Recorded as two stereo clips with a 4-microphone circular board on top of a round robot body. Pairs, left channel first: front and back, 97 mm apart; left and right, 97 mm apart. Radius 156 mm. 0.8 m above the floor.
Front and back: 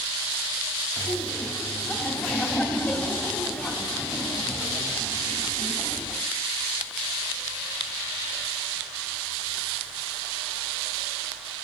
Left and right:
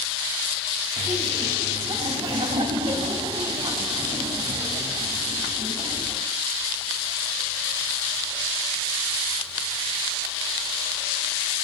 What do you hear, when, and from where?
1.0 s laughter: 75° right, 3 m